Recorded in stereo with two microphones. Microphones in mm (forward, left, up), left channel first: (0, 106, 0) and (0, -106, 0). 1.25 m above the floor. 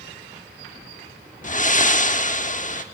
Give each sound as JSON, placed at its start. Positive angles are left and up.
{"t": 1.4, "sound": "breathing", "side_deg": 40, "distance_m": 1.1}